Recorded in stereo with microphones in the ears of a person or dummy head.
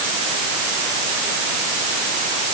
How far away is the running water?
No running water in this recording.